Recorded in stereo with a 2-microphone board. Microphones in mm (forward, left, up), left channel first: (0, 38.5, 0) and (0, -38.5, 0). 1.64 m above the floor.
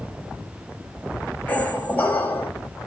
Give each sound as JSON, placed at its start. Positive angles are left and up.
{"t": 1.5, "sound": "a squeak", "side_deg": 20, "distance_m": 0.7}